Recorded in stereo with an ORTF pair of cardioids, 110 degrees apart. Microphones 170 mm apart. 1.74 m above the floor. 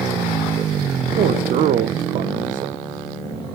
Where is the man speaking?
55° right, 0.6 m.